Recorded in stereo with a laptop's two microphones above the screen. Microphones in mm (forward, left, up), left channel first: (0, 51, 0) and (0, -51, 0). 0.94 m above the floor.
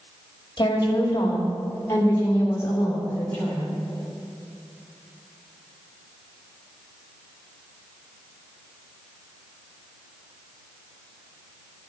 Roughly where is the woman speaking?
Left.